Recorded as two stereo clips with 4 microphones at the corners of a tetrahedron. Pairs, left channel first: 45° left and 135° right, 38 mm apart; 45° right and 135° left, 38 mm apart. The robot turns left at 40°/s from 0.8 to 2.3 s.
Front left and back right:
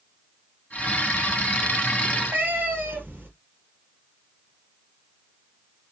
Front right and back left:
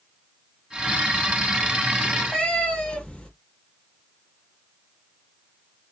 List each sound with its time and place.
2.0 s a cat meowing: 105° right, 1.9 m; by 3.3 s 115° right, 1.9 m